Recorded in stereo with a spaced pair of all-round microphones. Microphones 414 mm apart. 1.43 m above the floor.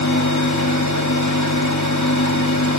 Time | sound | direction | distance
0.0 | a fan | 40° left (ahead or behind) | 1.9 m